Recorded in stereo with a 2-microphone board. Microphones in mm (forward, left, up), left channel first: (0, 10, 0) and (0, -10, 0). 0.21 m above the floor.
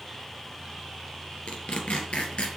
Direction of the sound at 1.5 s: 65° left (ahead or behind).